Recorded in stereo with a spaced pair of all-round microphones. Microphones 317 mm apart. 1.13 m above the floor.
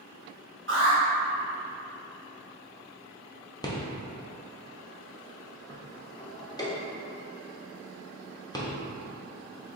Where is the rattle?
15° left (ahead or behind), 0.6 m.